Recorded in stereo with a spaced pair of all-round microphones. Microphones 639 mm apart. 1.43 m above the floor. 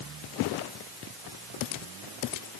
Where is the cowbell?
I don't hear a cowbell.